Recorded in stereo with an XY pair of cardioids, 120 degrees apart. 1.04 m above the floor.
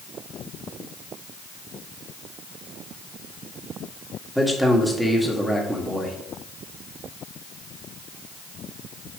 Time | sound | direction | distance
4.3 | a man speaking | straight ahead | 1.8 m